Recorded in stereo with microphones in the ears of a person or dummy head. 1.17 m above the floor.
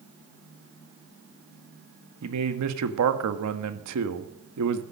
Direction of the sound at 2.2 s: 85° right.